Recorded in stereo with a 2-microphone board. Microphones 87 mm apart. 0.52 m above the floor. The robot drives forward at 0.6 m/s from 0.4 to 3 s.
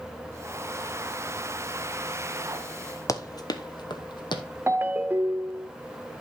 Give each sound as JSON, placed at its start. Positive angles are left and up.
{"t": 3.1, "sound": "running footsteps", "side_deg": 40, "distance_m": 0.7}
{"t": 4.7, "sound": "a ringtone", "side_deg": -25, "distance_m": 0.6}